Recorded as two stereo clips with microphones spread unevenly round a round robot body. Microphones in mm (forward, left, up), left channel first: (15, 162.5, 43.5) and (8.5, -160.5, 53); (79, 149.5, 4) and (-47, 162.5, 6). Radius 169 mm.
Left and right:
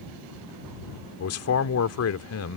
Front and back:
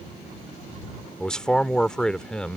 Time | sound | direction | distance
1.2 | a man speaking | 75° left | ?